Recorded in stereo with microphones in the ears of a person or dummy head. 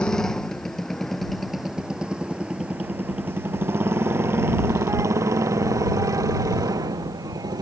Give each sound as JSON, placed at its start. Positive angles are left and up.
{"t": 0.0, "sound": "a motorcycle", "side_deg": 10}